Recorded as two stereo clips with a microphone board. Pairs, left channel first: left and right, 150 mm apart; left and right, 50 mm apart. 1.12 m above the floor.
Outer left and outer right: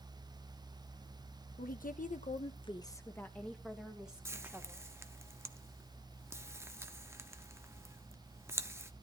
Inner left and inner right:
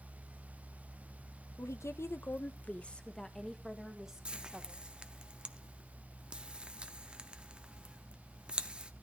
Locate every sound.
1.6 s a woman speaking: 70° left (ahead or behind), 1.0 m; by 4.9 s 15° right (ahead or behind), 2 m
4.2 s frying: 20° right (ahead or behind), 0.8 m